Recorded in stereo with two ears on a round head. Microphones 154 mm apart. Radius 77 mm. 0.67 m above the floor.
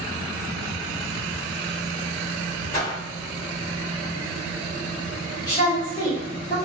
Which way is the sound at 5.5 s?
20° left (ahead or behind).